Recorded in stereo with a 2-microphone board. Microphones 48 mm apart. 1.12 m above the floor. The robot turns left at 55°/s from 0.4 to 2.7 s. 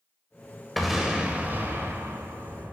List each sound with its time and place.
0.8 s an explosion: straight ahead, 1.8 m; by 2.7 s 105° right, 1.8 m